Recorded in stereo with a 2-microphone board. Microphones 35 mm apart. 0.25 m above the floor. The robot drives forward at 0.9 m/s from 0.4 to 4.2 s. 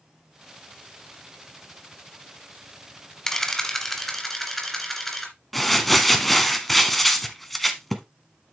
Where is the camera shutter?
15° left (ahead or behind), 1.2 m; by 5.3 s 10° left (ahead or behind), 1.9 m.